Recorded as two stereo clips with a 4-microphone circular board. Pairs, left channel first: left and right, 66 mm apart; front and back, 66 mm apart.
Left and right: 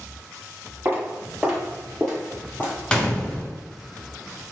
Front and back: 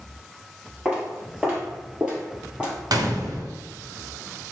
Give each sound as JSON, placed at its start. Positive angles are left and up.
{"t": 0.8, "sound": "footsteps", "azimuth_deg": -115, "distance_m": 1.7}
{"t": 2.9, "sound": "a gunshot", "azimuth_deg": 165, "distance_m": 0.7}